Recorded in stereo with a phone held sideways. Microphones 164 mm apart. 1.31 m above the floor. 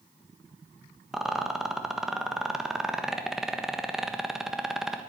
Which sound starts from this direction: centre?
A rattle, at 1.1 s.